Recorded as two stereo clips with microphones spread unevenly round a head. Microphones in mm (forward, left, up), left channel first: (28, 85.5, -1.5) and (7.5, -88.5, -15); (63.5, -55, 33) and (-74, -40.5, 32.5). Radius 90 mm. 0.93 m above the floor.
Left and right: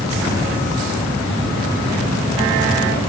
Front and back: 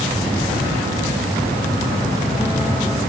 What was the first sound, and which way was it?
Only background noise.